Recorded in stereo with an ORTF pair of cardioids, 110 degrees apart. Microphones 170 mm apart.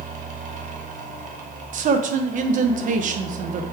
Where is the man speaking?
50° right, 1.0 m.